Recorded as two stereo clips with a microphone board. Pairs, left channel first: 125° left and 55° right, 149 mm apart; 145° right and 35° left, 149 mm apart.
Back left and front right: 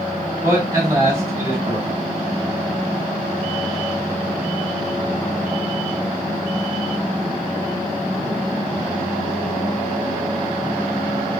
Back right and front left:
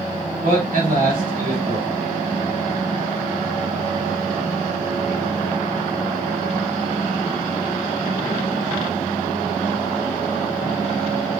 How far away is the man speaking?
About 3 m.